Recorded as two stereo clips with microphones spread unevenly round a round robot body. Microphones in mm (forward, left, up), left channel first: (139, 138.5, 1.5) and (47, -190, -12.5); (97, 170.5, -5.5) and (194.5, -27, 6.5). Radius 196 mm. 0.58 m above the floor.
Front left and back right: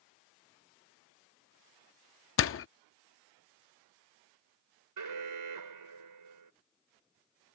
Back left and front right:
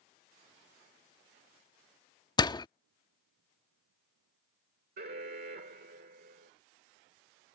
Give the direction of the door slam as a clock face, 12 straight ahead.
10 o'clock.